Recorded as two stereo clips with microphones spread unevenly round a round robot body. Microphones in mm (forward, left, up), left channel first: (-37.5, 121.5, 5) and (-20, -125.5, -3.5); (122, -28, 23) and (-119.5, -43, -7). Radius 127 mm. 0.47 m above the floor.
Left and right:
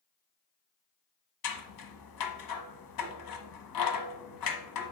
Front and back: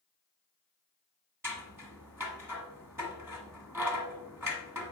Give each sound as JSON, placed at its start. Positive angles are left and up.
{"t": 1.4, "sound": "scissors", "azimuth_deg": 100, "distance_m": 1.1}